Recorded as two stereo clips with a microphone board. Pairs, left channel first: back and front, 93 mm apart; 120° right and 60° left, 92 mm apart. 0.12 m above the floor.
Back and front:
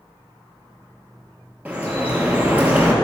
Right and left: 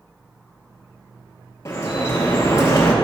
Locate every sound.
1.6 s dripping: 70° right, 1.7 m